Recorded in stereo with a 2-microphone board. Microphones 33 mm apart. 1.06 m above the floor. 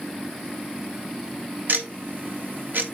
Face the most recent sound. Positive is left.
turn(degrees=-65)  # may be behind; listen again after turning